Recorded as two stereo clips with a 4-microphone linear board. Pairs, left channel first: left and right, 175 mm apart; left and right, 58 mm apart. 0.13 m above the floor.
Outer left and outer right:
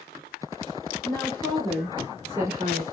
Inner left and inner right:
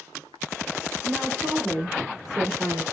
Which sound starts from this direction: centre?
A woman speaking, at 1.0 s.